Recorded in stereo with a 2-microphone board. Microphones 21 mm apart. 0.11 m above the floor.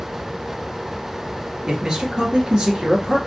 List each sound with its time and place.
1.7 s a man speaking: 35° right (ahead or behind), 1.4 m